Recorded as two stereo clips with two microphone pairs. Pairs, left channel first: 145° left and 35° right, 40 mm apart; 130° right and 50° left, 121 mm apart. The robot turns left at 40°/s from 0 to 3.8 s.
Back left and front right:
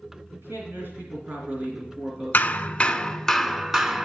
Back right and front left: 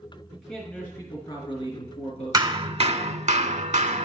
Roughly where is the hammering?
Left.